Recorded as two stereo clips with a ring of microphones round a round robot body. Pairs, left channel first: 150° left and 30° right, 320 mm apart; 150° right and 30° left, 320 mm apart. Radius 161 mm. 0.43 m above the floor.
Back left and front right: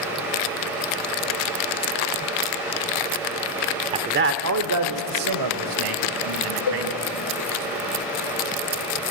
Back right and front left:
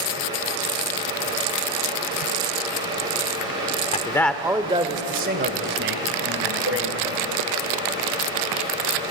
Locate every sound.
3.9 s a man speaking: 95° right, 1.0 m; by 7.7 s 15° right, 4 m
6.7 s a cowbell: 100° left, 0.7 m